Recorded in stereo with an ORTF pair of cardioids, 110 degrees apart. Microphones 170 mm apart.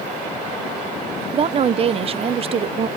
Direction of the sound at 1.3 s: 35° right.